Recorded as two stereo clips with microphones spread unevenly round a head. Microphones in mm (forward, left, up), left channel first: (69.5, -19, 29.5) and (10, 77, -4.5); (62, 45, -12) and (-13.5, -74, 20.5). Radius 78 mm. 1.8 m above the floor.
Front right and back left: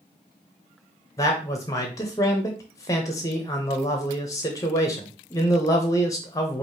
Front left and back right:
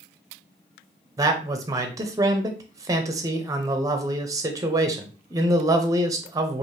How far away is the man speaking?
About 0.7 m.